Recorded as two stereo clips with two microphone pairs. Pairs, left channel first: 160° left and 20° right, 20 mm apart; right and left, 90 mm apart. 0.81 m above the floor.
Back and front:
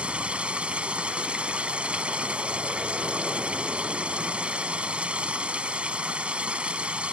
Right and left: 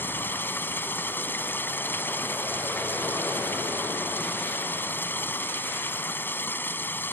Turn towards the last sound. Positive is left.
turn(degrees=-20)